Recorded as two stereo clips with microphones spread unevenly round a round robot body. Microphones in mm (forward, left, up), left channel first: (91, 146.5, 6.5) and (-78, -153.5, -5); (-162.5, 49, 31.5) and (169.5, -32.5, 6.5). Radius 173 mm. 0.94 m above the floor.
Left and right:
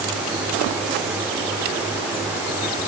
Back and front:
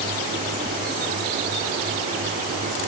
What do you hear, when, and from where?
Only background noise.